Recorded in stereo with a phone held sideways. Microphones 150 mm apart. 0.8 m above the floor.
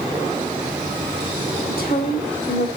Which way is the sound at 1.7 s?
75° left (ahead or behind).